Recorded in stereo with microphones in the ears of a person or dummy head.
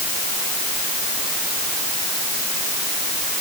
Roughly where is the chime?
I don't hear a chime.